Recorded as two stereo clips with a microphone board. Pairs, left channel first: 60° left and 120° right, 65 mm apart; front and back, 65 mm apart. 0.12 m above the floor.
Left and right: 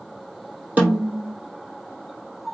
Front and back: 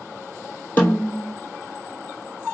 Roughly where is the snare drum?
Ahead right.